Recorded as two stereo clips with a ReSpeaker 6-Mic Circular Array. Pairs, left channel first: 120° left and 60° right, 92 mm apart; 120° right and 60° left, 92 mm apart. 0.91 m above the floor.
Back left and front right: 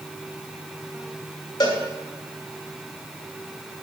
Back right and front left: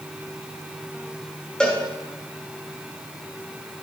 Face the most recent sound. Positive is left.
turn(degrees=160)